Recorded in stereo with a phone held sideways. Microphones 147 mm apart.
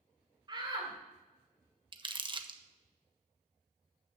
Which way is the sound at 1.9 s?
35° right (ahead or behind).